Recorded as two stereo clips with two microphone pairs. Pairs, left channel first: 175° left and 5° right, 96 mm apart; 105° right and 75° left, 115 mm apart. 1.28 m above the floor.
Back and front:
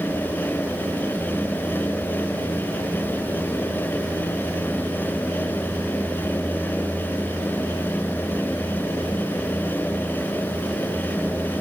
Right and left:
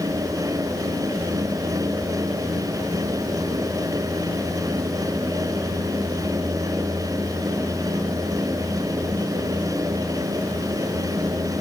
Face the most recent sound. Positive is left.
No sound to turn to.